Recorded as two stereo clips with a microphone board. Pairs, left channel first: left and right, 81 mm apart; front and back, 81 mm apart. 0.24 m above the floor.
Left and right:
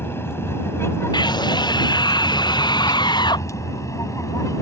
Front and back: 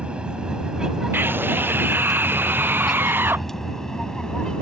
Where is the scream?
115° left.